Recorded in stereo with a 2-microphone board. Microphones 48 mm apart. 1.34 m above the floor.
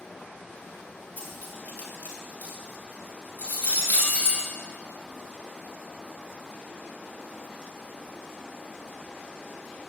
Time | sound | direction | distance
1.2 | cutlery clinking | 40° left (ahead or behind) | 6.5 m